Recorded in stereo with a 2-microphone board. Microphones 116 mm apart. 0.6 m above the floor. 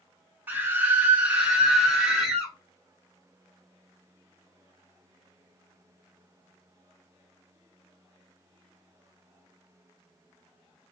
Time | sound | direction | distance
0.5 | a scream | 15° right (ahead or behind) | 0.7 m